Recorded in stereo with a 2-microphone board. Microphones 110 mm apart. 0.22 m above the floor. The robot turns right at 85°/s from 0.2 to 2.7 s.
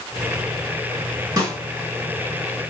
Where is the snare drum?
30° right (ahead or behind), 2 m; by 1.6 s 40° right (ahead or behind), 2 m.